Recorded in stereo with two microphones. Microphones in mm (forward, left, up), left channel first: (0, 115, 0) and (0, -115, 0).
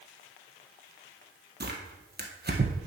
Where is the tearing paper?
45° right (ahead or behind), 1.6 m.